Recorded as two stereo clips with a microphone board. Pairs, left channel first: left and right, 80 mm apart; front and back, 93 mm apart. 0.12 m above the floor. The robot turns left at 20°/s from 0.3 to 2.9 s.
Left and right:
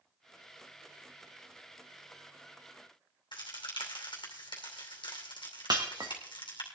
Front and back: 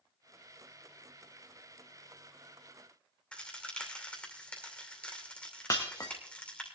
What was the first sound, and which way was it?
A crack, 75° left.